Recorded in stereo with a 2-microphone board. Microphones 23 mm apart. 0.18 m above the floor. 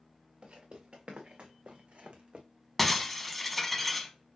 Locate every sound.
0.4 s footsteps: 60° right (ahead or behind), 1.6 m; by 2.5 s 45° right (ahead or behind), 0.8 m
2.8 s breaking glass: 5° left (ahead or behind), 0.7 m